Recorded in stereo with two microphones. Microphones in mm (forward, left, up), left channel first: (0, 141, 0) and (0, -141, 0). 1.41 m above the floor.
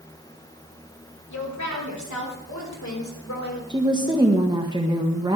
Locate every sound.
1.3 s a woman speaking: 80° left, 3.5 m
3.7 s a woman speaking: 15° right (ahead or behind), 1.3 m